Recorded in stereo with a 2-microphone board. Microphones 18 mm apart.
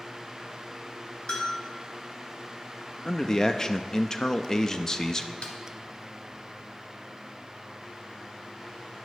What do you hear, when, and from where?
1.3 s a bell: 55° left (ahead or behind), 3 m
3.0 s a man speaking: 25° left (ahead or behind), 0.8 m
5.4 s a snare drum: 75° left (ahead or behind), 1.8 m